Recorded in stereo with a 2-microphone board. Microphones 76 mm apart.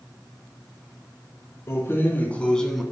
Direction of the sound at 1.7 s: 35° left (ahead or behind).